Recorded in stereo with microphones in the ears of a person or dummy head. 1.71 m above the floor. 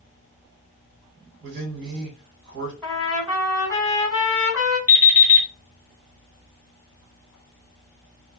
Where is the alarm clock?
15° right (ahead or behind), 1.8 m.